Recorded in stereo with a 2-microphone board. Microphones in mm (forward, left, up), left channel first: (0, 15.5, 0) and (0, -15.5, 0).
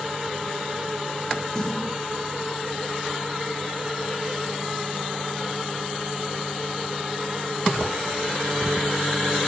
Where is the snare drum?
25° left (ahead or behind), 5.5 m.